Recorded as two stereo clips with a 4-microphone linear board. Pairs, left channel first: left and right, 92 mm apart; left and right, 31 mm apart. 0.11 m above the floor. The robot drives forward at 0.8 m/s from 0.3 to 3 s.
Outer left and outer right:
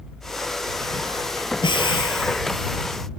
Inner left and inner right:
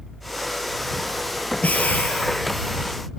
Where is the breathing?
60° left (ahead or behind), 3 m.